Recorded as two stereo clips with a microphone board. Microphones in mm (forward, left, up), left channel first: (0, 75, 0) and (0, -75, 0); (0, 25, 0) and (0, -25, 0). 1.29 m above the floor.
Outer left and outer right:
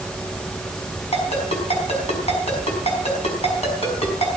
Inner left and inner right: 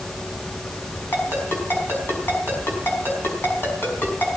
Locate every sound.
1.1 s a ringtone: 45° left (ahead or behind), 5 m